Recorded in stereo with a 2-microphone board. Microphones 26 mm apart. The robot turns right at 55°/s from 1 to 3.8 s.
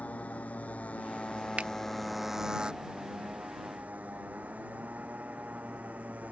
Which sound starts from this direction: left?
A motorcycle, at 0.0 s.